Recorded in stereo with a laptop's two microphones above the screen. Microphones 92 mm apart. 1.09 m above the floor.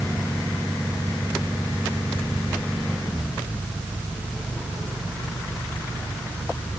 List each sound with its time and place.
Only background noise.